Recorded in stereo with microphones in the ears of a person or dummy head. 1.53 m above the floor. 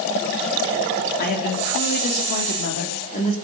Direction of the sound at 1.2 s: 55° left (ahead or behind).